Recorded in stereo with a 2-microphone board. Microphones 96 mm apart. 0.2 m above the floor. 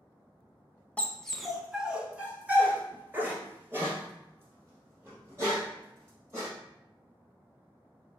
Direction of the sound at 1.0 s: 15° left (ahead or behind).